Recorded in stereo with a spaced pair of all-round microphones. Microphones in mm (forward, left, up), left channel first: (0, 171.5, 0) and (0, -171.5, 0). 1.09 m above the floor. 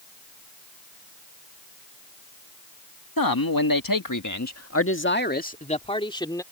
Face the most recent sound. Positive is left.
turn(degrees=10)  # may be behind; listen again after turning